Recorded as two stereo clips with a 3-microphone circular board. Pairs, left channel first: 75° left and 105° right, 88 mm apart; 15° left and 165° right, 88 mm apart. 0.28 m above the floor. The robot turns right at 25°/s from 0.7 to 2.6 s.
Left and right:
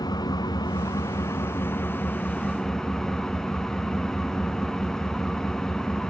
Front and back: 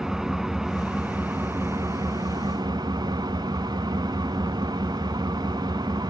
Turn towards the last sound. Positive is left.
turn(degrees=160)